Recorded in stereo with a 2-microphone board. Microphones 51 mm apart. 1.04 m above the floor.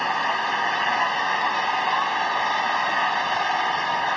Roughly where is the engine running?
Centre.